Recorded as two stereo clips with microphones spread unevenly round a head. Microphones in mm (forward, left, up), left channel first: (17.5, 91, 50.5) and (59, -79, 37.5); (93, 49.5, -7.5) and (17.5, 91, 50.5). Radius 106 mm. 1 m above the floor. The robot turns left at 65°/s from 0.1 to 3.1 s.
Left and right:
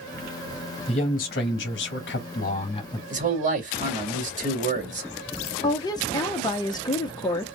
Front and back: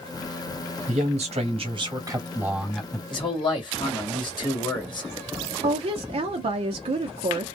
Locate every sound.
0.9 s a man speaking: 170° left, 1.7 m; by 3.0 s 30° left, 1.7 m
3.1 s a man speaking: 35° right, 1.9 m
5.6 s a woman speaking: 155° left, 0.7 m